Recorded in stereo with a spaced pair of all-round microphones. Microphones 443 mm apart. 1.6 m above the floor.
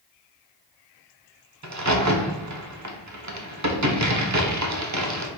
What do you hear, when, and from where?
1.6 s a crack: 40° right (ahead or behind), 0.7 m